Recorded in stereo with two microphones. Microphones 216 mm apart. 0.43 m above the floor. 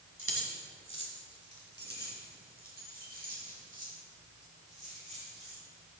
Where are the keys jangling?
80° right, 2 m; by 5.6 s 30° right (ahead or behind), 6.5 m.